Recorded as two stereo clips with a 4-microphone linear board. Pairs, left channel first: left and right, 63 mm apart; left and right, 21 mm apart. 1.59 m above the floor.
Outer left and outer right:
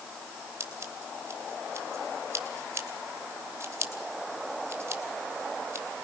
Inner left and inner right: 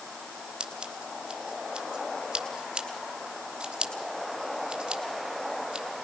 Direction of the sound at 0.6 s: 45° right (ahead or behind).